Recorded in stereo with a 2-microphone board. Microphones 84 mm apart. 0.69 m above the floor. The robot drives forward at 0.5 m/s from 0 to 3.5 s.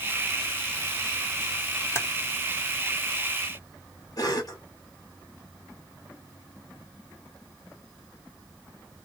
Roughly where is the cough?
Left.